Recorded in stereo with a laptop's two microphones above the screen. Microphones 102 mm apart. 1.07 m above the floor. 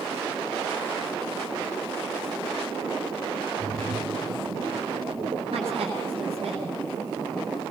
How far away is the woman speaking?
About 10 m.